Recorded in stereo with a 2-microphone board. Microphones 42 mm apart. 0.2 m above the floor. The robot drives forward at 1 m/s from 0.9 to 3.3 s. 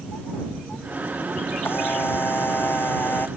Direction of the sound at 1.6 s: 65° left (ahead or behind).